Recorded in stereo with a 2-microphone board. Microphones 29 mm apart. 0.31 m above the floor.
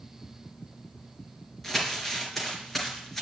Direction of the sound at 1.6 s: 5° left (ahead or behind).